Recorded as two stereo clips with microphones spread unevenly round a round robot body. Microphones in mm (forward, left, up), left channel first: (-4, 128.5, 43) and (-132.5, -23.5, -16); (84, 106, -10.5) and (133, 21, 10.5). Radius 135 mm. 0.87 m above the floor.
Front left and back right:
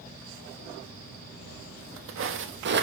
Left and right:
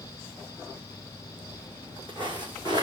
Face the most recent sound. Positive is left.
turn(degrees=-165)